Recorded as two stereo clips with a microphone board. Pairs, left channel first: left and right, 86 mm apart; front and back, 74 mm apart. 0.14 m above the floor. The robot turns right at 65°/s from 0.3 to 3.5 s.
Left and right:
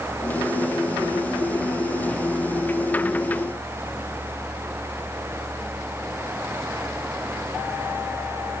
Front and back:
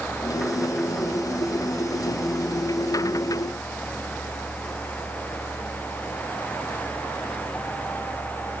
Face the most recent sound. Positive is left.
No sound to turn to.